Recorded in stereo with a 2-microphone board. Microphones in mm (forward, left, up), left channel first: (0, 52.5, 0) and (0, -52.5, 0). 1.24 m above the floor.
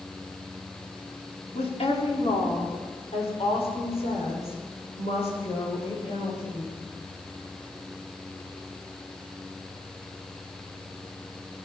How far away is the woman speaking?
About 3.5 m.